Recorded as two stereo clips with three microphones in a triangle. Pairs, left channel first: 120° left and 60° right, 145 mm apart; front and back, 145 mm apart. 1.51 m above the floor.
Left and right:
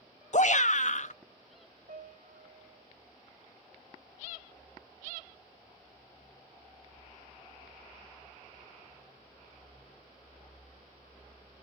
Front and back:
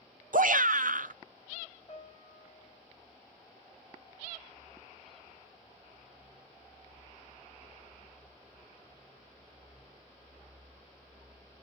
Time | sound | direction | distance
0.3 | a shout | 155° left | 0.8 m
1.9 | a piano | 65° right | 6.5 m